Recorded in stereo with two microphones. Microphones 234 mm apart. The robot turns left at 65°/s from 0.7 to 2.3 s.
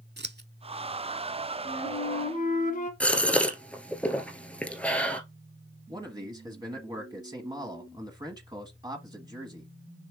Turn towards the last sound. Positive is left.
turn(degrees=-20)  # may be behind; listen again after turning